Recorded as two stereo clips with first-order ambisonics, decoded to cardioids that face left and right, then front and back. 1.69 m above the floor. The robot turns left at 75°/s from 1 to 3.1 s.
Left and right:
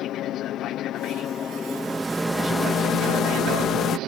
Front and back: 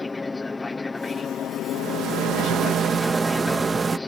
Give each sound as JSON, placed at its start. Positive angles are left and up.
{"t": 0.0, "sound": "an aircraft", "azimuth_deg": 75}
{"t": 1.7, "sound": "a rattle", "azimuth_deg": -140}